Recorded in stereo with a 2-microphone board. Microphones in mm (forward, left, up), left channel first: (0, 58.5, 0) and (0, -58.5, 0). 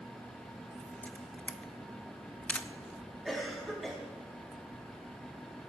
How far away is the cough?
About 3 m.